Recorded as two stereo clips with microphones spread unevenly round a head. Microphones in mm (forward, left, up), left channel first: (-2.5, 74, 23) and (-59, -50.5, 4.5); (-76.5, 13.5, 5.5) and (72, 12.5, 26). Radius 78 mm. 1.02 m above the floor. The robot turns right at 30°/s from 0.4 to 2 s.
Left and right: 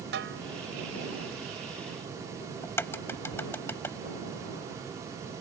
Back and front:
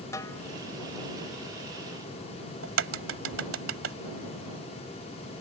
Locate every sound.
0.1 s a snare drum: 105° right
2.6 s a crack: 10° right